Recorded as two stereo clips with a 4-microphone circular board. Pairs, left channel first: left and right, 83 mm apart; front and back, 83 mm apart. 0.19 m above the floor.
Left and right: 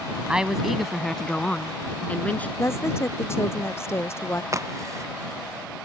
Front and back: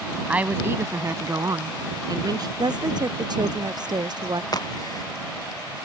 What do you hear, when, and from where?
0.3 s a woman speaking: 145° right; by 2.5 s 160° left
2.6 s a woman speaking: 150° left
4.5 s a crack: 40° right